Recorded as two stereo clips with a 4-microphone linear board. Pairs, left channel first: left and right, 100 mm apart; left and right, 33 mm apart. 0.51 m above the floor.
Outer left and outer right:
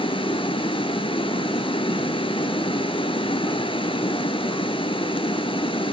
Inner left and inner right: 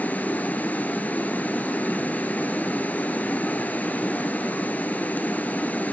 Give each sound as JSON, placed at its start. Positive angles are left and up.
{"t": 0.0, "sound": "running water", "side_deg": 55, "distance_m": 0.9}